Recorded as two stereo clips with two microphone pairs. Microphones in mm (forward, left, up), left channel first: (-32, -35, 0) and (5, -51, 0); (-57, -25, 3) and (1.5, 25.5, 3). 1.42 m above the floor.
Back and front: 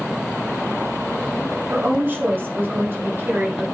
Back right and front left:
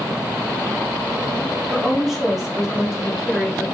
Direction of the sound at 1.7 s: 45° right.